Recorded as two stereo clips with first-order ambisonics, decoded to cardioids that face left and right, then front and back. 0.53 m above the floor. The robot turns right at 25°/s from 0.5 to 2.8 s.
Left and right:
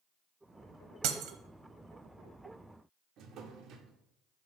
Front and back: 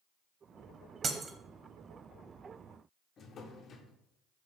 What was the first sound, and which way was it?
Breaking glass, 115° right.